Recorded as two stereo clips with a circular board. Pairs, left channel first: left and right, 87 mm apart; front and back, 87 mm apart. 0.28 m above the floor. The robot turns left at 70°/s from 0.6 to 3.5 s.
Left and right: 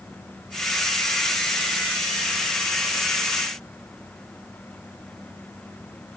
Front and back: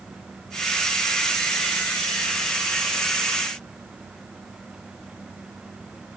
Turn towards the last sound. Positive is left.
No sound to turn to.